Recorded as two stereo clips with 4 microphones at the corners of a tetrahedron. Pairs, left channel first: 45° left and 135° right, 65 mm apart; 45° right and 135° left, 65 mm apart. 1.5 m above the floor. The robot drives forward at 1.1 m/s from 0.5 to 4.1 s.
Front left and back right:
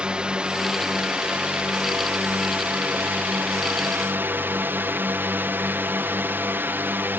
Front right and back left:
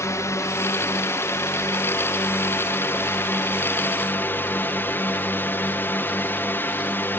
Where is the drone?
65° right; by 7.2 s 85° right.